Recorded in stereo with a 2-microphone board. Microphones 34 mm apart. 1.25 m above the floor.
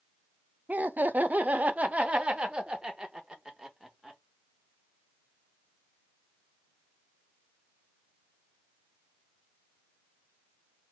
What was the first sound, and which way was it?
Laughter, 55° right (ahead or behind).